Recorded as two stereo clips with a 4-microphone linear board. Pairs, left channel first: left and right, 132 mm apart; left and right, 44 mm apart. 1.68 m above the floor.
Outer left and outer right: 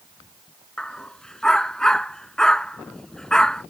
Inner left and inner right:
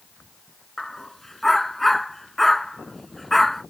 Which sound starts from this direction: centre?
A dog barking, at 0.8 s.